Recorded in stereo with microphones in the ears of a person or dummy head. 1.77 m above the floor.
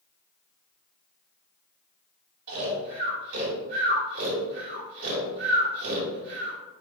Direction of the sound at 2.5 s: 60° right (ahead or behind).